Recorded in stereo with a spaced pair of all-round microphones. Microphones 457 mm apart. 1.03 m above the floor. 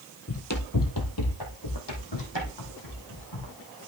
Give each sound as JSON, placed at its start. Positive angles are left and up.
{"t": 0.3, "sound": "running footsteps", "side_deg": 30, "distance_m": 1.3}